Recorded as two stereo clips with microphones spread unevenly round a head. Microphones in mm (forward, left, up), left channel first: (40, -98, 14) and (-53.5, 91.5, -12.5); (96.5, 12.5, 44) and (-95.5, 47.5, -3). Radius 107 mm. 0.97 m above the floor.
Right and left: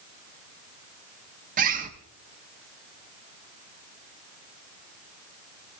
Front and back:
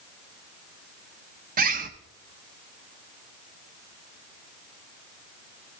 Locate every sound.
1.6 s a bird: 155° left, 0.9 m